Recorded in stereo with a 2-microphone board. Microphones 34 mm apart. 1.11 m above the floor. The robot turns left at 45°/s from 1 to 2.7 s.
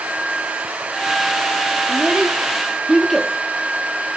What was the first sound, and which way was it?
A child speaking, 45° right (ahead or behind).